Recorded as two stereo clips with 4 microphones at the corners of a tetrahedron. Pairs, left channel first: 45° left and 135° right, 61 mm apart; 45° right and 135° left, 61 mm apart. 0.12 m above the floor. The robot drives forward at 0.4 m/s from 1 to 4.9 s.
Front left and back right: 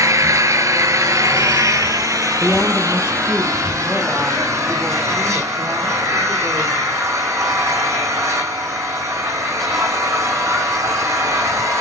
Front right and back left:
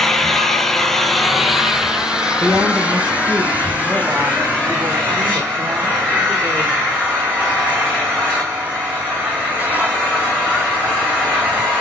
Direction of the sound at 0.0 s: 130° right.